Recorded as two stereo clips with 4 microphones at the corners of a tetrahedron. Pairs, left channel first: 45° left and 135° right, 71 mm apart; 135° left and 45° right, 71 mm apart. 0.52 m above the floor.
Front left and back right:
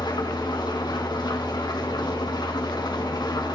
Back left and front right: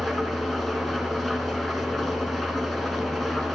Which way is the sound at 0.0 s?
50° left.